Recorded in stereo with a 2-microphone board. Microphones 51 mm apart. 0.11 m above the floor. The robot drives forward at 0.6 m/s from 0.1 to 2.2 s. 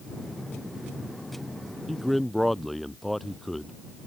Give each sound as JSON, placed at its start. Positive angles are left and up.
{"t": 1.9, "sound": "a man speaking", "side_deg": 0}